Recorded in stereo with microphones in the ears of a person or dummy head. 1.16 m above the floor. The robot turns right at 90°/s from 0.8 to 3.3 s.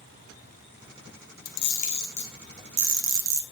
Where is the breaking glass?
No breaking glass in this recording.